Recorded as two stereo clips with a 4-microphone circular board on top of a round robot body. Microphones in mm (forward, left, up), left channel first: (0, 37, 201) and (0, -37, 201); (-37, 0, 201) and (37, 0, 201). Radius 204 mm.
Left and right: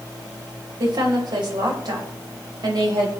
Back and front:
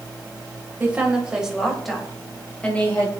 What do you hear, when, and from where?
0.8 s a woman speaking: 70° right, 4 m; by 3.1 s 115° right, 4.5 m